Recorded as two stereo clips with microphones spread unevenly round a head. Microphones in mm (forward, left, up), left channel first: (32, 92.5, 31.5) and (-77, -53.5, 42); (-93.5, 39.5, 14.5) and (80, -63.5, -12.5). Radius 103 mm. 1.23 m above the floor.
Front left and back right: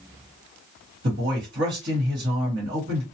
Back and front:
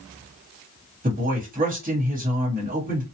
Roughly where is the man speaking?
Right.